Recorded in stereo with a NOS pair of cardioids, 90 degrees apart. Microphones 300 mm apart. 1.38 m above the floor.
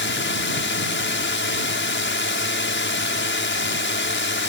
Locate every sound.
0.0 s a drone: 45° left